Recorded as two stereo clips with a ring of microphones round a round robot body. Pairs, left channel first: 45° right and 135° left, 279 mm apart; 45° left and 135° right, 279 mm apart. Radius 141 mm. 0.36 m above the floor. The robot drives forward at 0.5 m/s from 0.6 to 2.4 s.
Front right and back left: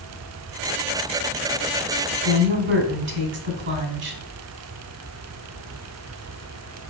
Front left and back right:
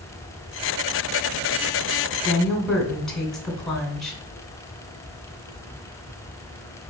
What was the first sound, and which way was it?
A woman speaking, 125° left.